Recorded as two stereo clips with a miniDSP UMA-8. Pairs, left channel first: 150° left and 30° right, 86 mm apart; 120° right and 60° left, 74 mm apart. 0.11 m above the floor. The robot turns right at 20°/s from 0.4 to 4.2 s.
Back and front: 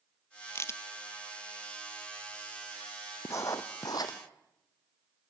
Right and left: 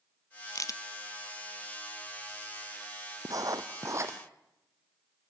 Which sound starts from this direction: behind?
A crack, at 0.6 s.